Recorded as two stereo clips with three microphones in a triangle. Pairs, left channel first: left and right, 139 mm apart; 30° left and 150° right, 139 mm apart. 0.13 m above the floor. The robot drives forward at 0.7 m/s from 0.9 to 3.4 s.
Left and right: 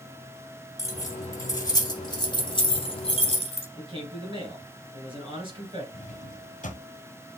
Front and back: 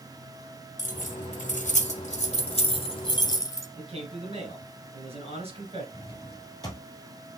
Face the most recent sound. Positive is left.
turn(degrees=90)